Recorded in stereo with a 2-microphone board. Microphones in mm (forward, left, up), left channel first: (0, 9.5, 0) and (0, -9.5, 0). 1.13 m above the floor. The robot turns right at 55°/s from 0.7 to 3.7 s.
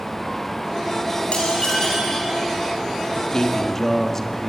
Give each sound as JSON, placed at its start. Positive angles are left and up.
{"t": 1.3, "sound": "dishes clattering", "azimuth_deg": 125, "distance_m": 7.0}
{"t": 3.1, "sound": "a man speaking", "azimuth_deg": 130, "distance_m": 1.6}